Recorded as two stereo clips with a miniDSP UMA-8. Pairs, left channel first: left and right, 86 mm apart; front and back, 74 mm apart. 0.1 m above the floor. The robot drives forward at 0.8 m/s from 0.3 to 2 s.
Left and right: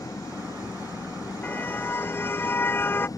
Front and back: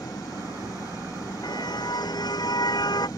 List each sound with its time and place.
0.0 s an engine running: 40° left
1.4 s a car horn: 20° left; by 3.1 s 25° left